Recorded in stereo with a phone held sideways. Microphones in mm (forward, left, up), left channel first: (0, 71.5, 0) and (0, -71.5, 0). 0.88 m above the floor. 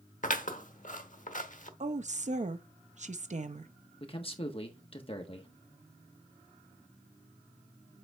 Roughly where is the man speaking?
Left.